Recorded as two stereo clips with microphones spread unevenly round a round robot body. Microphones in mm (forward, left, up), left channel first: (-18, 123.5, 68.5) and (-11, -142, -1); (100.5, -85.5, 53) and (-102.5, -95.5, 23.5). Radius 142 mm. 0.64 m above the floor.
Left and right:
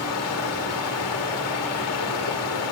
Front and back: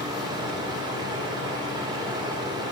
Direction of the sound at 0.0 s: 120° left.